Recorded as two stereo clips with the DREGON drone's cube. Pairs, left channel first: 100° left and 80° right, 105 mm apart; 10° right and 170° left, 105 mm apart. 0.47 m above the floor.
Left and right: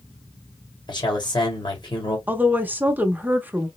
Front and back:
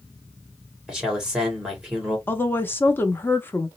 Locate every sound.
0.9 s a man speaking: 90° left, 1.9 m
2.3 s a woman speaking: 40° right, 0.7 m